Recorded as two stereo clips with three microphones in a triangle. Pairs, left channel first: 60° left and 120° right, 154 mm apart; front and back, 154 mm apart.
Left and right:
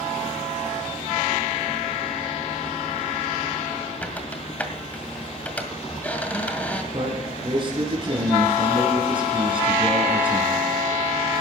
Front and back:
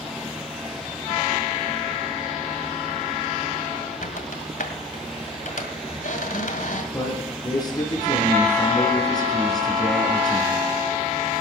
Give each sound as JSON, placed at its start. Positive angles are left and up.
{"t": 4.0, "sound": "a squeak", "azimuth_deg": -20, "distance_m": 1.9}
{"t": 6.9, "sound": "a man speaking", "azimuth_deg": -65, "distance_m": 4.5}